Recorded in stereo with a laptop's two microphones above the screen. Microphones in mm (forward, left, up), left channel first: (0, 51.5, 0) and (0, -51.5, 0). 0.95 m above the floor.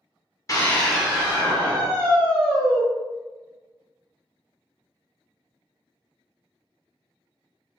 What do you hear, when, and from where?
0.5 s a scream: 30° left (ahead or behind), 0.6 m; by 2.8 s 60° right (ahead or behind), 1.7 m